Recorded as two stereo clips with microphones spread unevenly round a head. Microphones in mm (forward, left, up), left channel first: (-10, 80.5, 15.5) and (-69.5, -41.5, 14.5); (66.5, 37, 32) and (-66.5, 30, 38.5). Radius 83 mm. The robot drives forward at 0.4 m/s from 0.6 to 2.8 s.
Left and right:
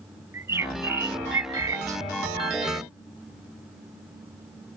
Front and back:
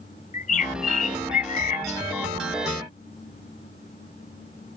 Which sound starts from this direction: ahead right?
A bird, at 0.3 s.